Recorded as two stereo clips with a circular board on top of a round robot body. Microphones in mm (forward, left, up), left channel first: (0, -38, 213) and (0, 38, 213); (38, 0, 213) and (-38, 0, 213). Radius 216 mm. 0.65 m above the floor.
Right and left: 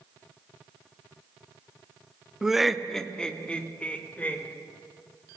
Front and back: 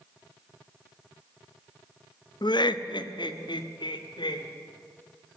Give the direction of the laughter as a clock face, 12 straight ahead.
12 o'clock.